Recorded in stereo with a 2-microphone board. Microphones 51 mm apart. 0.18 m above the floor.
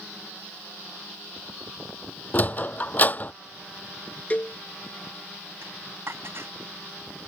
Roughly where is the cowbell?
Left.